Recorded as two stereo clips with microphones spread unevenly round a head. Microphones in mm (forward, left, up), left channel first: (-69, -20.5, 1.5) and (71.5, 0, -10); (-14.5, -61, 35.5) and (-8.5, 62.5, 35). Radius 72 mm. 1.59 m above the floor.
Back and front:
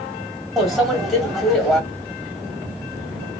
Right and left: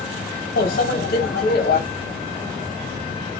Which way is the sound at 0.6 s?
85° right.